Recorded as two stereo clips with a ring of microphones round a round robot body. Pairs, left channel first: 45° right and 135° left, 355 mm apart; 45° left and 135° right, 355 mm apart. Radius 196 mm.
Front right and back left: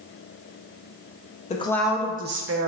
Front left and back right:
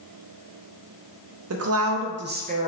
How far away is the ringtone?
No ringtone in this recording.